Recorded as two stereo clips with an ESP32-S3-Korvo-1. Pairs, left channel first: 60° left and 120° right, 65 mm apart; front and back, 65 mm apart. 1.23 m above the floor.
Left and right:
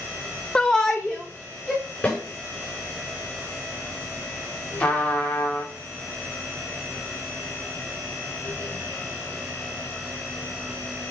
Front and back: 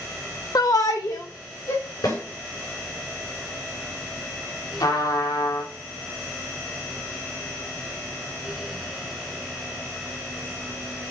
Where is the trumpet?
10° right, 2.5 m.